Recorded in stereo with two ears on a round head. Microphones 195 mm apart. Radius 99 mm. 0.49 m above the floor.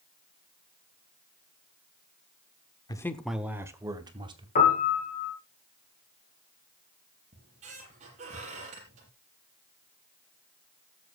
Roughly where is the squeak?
Right.